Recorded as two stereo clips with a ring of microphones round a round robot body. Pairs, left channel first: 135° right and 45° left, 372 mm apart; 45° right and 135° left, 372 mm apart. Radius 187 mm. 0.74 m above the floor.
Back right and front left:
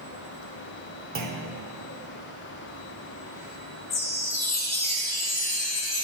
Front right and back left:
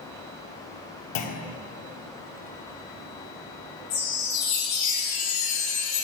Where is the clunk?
20° right, 0.6 m.